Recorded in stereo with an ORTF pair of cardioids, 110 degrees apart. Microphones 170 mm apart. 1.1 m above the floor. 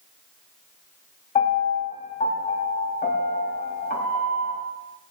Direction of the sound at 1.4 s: 50° left.